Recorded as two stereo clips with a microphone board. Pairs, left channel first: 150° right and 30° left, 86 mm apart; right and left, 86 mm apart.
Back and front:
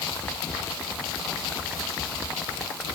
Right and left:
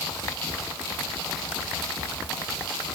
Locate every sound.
Only background noise.